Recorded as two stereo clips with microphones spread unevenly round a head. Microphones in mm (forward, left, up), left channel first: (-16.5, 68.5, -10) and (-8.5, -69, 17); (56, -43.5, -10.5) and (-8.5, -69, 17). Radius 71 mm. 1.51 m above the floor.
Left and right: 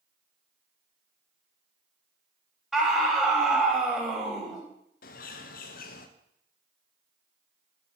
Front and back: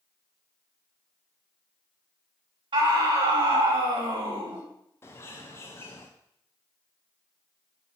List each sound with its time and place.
2.7 s a scream: 175° right, 3.5 m
5.0 s a bird: 80° left, 1.0 m